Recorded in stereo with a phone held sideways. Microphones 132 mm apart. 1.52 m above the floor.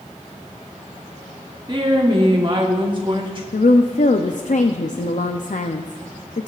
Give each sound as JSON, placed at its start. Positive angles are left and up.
{"t": 1.7, "sound": "a woman speaking", "side_deg": -35, "distance_m": 1.1}
{"t": 3.5, "sound": "a woman speaking", "side_deg": 65, "distance_m": 0.6}